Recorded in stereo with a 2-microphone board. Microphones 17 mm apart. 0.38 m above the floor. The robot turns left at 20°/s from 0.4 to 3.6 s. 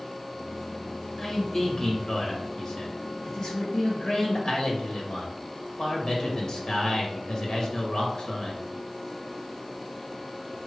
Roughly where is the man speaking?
Behind left.